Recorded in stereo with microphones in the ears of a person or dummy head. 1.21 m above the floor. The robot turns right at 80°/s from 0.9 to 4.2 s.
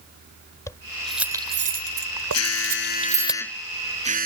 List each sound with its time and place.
0.7 s keys jangling: 15° left (ahead or behind); by 3.3 s centre (ahead or behind)
2.3 s an alarm: 80° left; by 4.3 s 130° right